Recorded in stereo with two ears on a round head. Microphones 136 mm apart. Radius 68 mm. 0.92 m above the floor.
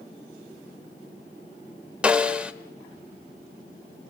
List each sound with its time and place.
2.0 s a snare drum: 10° right (ahead or behind), 1.4 m